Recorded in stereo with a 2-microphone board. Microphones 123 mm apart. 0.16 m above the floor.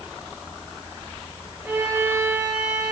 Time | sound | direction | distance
1.6 | a violin | 15° right (ahead or behind) | 8 m